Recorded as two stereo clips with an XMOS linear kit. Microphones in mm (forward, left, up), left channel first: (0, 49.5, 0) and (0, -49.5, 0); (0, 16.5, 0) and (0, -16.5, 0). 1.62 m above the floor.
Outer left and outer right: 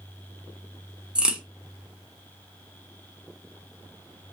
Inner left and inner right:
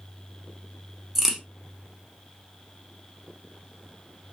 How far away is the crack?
About 1.0 m.